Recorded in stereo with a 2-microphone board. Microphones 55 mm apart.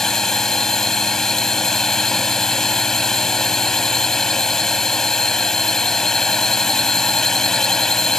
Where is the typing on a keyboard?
No typing on a keyboard in this recording.